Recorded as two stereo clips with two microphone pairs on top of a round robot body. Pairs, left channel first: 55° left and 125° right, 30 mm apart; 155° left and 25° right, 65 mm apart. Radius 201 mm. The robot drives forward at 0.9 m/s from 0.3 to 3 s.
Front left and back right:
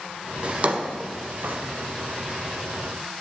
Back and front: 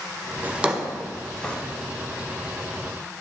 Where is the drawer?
85° right, 1.2 m; by 1.6 s 130° right, 1.5 m.